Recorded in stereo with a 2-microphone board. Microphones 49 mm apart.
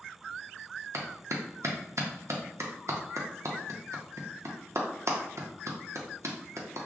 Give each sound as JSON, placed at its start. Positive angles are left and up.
{"t": 0.9, "sound": "a clap", "side_deg": -70, "distance_m": 0.6}